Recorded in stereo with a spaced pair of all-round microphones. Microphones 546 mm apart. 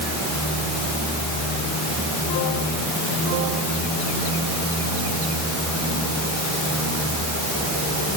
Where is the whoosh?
I don't hear a whoosh.